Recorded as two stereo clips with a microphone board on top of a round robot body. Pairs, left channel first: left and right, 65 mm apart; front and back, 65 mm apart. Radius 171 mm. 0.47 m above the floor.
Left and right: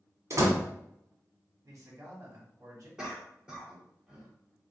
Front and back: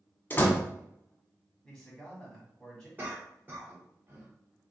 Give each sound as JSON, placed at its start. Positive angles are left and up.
{"t": 0.3, "sound": "a door slam", "azimuth_deg": -55, "distance_m": 1.5}
{"t": 1.6, "sound": "a man speaking", "azimuth_deg": -75, "distance_m": 1.8}
{"t": 3.0, "sound": "a cough", "azimuth_deg": -150, "distance_m": 1.4}